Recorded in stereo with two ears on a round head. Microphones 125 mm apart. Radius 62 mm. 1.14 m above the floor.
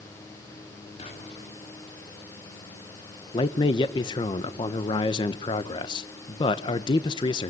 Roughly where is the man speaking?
Left.